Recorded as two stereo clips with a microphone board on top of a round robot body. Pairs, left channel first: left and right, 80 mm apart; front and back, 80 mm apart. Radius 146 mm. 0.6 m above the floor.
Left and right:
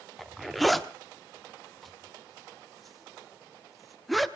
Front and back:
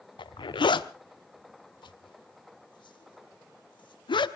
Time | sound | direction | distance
0.2 | a zipper | straight ahead | 1.2 m